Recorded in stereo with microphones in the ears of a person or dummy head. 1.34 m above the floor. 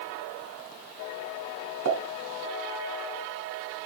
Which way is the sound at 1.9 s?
65° right (ahead or behind).